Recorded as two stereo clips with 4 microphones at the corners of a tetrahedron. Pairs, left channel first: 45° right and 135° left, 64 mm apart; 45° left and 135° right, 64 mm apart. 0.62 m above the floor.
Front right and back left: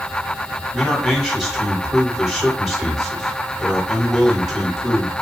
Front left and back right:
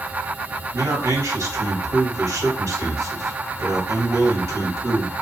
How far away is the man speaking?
About 1.6 m.